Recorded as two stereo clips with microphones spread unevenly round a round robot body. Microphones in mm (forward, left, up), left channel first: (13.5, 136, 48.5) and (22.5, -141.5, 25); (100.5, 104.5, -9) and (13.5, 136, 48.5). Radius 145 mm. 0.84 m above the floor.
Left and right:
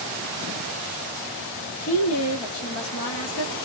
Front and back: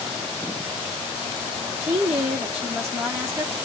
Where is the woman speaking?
70° left, 1.1 m.